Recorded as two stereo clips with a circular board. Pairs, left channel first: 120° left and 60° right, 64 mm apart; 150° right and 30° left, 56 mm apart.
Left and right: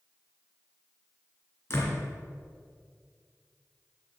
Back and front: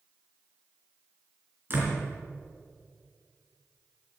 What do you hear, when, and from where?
1.7 s a door slam: 75° left, 3 m